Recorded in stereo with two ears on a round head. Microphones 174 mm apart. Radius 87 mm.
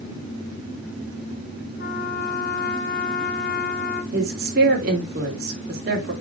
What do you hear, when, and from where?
1.8 s a trumpet: 50° left (ahead or behind), 1.3 m
4.1 s a woman speaking: 50° right (ahead or behind), 3 m